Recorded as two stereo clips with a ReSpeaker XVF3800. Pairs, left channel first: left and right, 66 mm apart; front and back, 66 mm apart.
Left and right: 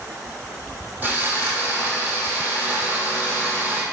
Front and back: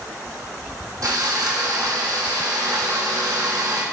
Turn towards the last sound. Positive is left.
turn(degrees=-155)